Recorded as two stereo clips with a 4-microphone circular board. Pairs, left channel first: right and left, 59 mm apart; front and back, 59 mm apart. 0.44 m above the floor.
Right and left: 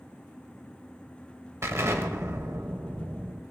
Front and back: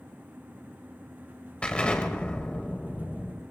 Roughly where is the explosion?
Left.